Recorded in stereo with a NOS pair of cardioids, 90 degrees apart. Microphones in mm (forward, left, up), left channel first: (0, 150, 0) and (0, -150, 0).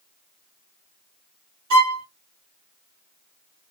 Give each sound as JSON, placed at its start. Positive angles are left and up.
{"t": 1.7, "sound": "a violin", "azimuth_deg": -70, "distance_m": 1.9}